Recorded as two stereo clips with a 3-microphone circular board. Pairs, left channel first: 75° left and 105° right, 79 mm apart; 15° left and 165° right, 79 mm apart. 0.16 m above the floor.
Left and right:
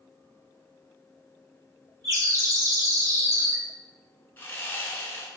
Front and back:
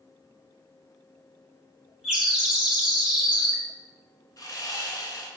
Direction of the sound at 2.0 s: 85° right.